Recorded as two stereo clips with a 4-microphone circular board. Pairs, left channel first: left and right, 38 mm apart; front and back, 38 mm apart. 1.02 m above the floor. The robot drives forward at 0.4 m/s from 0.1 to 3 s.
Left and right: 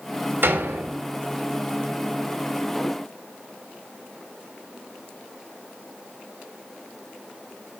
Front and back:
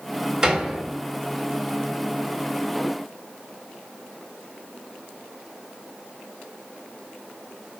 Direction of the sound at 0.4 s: 110° right.